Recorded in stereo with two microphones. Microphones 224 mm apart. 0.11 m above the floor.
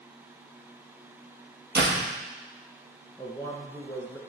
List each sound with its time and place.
1.8 s a door slam: 50° right (ahead or behind), 2.5 m
3.2 s a man speaking: 10° left (ahead or behind), 1.5 m